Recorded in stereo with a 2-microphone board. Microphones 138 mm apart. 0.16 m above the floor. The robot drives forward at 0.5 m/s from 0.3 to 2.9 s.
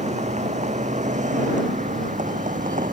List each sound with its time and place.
0.0 s a vehicle: 60° right (ahead or behind); by 2.9 s 70° right (ahead or behind)